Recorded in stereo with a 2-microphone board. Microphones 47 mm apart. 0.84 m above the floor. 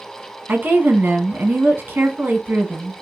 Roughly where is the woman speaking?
Right.